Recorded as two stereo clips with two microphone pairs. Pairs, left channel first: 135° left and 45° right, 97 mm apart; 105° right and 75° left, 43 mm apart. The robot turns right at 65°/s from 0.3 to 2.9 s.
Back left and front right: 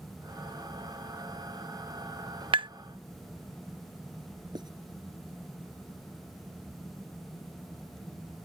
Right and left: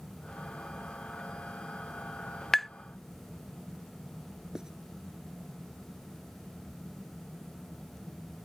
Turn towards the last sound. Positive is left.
turn(degrees=0)